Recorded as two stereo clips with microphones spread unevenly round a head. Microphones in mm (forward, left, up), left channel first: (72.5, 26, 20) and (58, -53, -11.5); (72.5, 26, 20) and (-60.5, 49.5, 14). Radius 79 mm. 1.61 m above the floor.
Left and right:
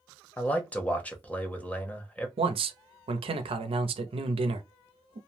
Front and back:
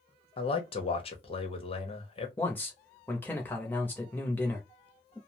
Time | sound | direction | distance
0.4 | a man speaking | 25° left | 0.9 m
2.4 | a man speaking | 90° right | 0.6 m